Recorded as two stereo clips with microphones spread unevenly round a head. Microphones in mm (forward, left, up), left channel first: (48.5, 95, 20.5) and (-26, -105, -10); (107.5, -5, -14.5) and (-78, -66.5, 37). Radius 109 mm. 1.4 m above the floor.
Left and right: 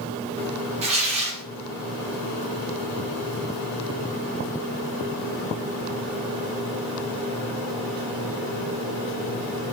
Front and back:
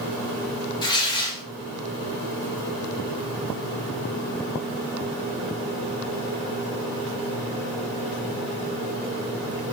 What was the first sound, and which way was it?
Tearing paper, 60° right.